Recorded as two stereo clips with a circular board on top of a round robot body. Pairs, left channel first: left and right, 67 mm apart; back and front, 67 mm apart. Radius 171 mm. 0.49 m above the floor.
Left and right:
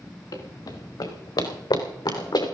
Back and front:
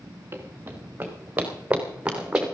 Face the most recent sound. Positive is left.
turn(degrees=80)